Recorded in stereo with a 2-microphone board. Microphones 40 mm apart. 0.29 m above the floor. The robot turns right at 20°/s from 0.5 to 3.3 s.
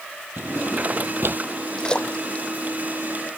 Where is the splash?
15° left (ahead or behind); by 2.5 s 30° left (ahead or behind).